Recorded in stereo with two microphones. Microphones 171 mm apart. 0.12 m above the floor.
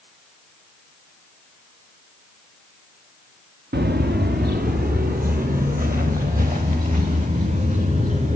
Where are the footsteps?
75° right (ahead or behind), 0.8 m; by 8.4 s 50° right (ahead or behind), 3 m.